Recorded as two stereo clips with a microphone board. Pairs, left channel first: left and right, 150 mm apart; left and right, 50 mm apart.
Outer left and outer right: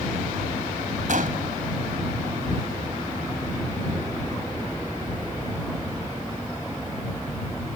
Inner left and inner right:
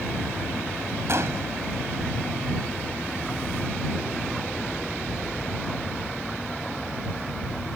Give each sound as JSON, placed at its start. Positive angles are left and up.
{"t": 1.1, "sound": "a gunshot", "side_deg": -60}